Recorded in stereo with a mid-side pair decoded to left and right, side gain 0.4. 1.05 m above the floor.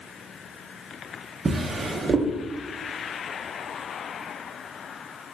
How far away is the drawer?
About 0.7 m.